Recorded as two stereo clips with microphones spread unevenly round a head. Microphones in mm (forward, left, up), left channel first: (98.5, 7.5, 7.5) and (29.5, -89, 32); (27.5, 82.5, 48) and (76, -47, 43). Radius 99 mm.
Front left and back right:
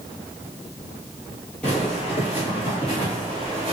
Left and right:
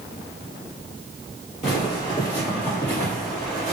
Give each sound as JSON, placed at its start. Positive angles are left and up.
{"t": 1.6, "sound": "footsteps", "azimuth_deg": 145, "distance_m": 1.3}